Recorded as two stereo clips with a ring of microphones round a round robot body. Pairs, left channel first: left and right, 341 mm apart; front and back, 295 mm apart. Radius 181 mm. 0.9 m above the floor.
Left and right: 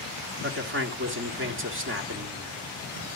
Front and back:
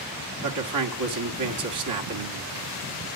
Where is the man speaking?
145° right, 1.8 m.